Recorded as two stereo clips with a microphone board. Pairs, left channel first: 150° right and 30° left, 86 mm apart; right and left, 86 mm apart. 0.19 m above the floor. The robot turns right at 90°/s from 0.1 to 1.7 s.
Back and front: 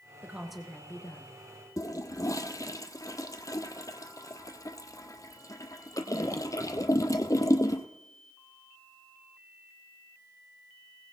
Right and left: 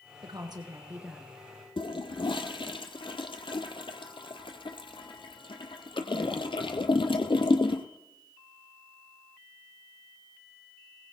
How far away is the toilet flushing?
About 1.0 m.